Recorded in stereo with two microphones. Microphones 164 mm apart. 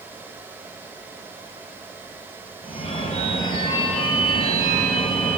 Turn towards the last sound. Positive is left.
turn(degrees=40)  # may be behind; listen again after turning